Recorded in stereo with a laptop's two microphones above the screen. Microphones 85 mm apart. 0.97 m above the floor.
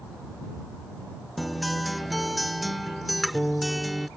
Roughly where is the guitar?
Centre.